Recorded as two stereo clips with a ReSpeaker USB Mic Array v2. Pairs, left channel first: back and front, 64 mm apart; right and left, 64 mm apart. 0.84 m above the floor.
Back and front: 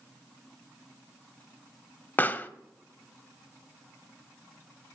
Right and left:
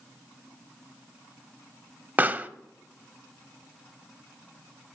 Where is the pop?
135° left, 0.8 m.